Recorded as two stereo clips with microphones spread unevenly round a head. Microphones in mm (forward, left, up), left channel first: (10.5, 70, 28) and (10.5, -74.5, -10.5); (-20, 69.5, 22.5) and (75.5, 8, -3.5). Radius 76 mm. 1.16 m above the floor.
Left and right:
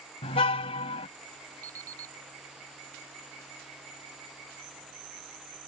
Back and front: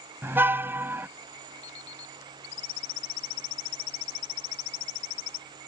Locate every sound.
0.2 s a car horn: 40° left
1.6 s an alarm clock: 160° right